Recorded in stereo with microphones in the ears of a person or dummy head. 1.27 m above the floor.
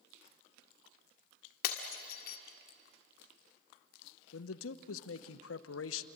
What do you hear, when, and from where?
1.6 s breaking glass: 65° left (ahead or behind), 1.6 m
4.3 s a man speaking: 85° left, 0.9 m